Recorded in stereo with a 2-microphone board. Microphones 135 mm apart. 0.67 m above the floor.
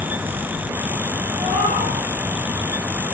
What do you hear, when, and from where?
1.4 s a cat meowing: 45° right (ahead or behind), 7 m